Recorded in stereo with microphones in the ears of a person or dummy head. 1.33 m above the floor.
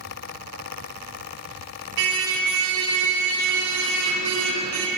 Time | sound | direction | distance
2.0 | a car horn | 70° right (ahead or behind) | 2.5 m